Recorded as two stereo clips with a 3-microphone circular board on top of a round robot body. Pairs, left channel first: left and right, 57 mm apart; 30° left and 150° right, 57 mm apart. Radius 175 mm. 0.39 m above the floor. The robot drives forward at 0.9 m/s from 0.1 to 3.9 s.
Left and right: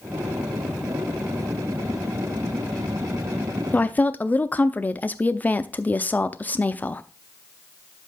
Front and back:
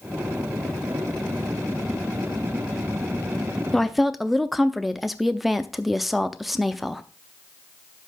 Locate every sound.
3.7 s a woman speaking: 100° left, 0.9 m; by 7.0 s 125° left, 0.9 m